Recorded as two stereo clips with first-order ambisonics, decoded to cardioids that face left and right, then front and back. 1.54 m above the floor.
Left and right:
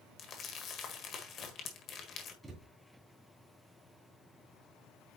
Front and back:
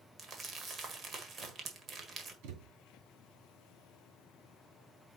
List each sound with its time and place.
0.2 s crumpling: 130° left, 1.6 m
2.4 s a thud: 170° right, 2.5 m